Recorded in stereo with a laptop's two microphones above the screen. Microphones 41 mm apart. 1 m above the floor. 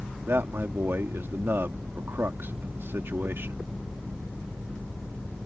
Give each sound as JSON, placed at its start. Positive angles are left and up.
{"t": 0.3, "sound": "a man speaking", "side_deg": -65}